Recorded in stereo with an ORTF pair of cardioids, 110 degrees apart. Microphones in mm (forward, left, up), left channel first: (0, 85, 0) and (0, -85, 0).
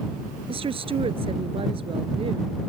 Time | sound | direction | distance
0.5 | a woman speaking | 35° right | ?